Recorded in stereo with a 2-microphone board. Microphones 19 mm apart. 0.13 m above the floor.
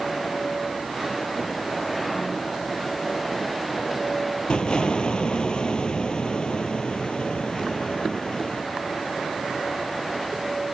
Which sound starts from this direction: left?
An explosion, at 4.5 s.